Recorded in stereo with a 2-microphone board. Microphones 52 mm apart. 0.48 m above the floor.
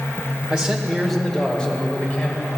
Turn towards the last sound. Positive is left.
turn(degrees=30)  # may be behind; listen again after turning